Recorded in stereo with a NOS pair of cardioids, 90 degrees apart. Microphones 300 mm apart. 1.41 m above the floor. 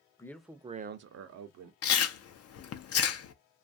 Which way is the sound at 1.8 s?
55° left.